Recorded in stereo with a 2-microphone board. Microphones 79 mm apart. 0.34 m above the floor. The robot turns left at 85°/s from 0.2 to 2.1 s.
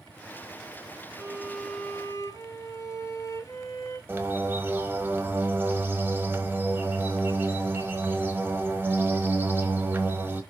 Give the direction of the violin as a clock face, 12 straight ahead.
5 o'clock.